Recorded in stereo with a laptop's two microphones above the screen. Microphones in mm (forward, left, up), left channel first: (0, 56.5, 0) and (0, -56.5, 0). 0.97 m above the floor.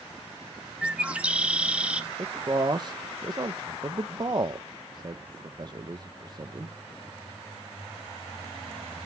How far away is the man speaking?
About 0.5 m.